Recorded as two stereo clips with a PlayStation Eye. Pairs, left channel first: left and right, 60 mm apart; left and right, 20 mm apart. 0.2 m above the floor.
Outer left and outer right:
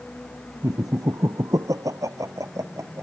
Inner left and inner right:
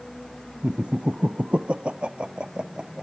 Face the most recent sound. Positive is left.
turn(degrees=-50)  # may be behind; listen again after turning